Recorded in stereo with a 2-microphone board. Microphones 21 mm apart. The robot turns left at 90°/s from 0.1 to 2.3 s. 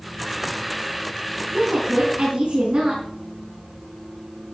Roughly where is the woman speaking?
Ahead right.